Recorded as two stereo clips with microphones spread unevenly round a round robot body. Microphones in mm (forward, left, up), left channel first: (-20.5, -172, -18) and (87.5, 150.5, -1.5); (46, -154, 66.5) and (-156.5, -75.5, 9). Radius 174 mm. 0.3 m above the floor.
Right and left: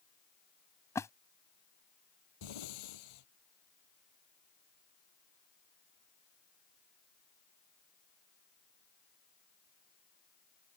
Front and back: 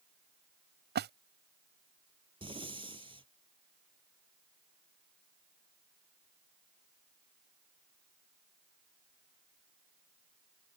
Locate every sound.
0.9 s a splash: 170° left
2.4 s breathing: 135° right